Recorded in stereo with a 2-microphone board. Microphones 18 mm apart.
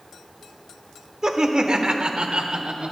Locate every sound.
1.2 s laughter: 40° right (ahead or behind), 1.2 m; by 2.9 s 60° right (ahead or behind), 1.6 m